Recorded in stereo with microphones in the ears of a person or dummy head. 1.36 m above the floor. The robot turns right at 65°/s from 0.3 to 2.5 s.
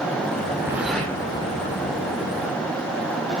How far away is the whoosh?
About 3 m.